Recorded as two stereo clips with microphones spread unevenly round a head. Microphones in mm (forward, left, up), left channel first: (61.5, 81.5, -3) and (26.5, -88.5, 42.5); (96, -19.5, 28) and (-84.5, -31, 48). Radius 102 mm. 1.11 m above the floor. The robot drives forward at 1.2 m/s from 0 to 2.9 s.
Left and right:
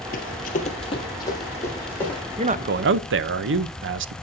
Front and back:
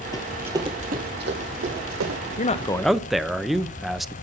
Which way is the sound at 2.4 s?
40° right.